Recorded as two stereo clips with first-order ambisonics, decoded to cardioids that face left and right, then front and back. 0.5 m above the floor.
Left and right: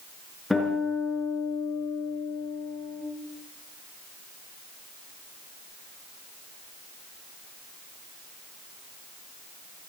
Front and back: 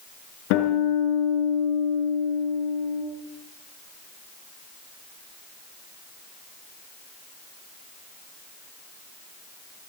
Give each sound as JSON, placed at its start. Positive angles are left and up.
{"t": 0.5, "sound": "a guitar", "azimuth_deg": 5, "distance_m": 6.0}